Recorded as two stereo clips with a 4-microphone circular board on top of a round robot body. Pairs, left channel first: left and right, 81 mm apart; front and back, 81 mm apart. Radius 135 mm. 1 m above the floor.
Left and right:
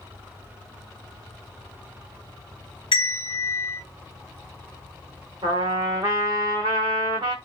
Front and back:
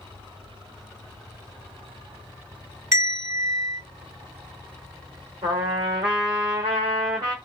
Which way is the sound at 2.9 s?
125° left.